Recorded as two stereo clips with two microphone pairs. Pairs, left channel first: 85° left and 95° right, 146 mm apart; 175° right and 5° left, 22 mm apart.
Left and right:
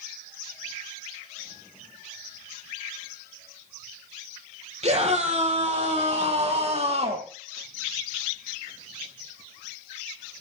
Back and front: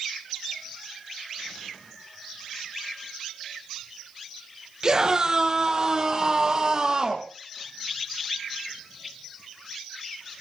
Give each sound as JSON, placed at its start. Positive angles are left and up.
{"t": 4.8, "sound": "a scream", "azimuth_deg": -55, "distance_m": 5.0}